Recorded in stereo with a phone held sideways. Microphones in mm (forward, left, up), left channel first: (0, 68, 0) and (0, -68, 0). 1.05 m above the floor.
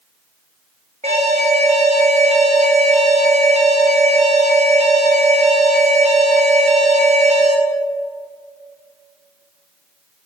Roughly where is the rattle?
I don't hear a rattle.